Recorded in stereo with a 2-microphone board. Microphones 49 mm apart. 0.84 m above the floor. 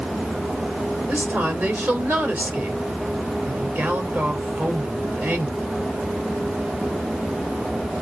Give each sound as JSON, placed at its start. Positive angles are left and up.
{"t": 1.1, "sound": "a woman speaking", "side_deg": -40, "distance_m": 3.0}